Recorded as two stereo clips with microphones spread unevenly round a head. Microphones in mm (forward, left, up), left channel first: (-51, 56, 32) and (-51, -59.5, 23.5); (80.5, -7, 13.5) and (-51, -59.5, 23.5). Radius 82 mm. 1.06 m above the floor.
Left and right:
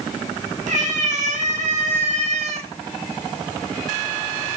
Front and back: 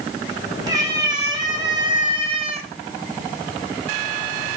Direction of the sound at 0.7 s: 95° right.